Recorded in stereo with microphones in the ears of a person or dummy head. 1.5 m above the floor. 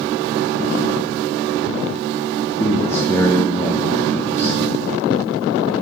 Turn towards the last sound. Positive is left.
turn(degrees=10)  # may be behind; listen again after turning